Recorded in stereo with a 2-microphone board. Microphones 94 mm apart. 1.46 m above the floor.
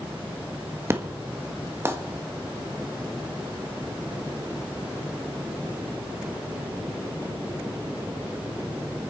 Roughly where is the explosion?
Right.